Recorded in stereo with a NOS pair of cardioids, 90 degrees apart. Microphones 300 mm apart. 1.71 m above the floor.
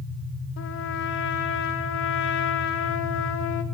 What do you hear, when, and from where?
0.6 s a trumpet: 65° left, 6 m